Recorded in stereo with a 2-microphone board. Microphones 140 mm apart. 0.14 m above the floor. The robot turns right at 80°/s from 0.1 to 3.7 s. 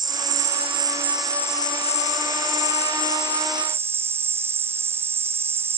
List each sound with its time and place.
0.0 s an insect: 90° right; by 5.8 s 160° right